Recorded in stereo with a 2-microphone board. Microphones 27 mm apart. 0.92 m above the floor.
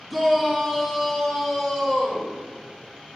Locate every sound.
0.1 s a shout: 5° left (ahead or behind), 1.7 m; by 2.3 s 25° left (ahead or behind), 2.5 m